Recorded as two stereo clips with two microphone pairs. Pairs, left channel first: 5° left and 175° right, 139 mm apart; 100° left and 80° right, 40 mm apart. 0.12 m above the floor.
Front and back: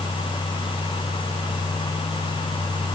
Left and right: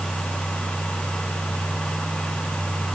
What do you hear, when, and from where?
Only background noise.